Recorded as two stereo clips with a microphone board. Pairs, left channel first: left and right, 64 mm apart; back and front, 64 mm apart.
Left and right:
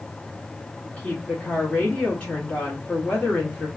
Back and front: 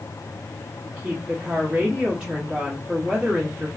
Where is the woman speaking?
50° left, 1.2 m.